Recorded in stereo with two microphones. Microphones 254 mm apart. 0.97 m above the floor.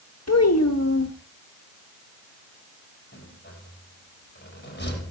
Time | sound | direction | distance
0.3 | a child speaking | 80° left | 1.1 m
3.1 | a rattle | 45° left (ahead or behind) | 5.5 m